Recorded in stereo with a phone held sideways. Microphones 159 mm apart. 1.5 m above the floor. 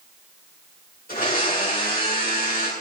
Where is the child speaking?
No child speaking in this recording.